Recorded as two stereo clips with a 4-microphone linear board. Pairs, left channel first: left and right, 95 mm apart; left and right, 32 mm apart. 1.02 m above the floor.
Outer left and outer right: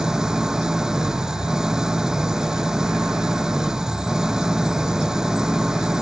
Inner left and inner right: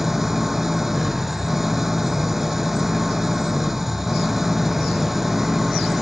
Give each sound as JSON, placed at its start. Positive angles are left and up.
{"t": 0.0, "sound": "an engine running", "side_deg": -5}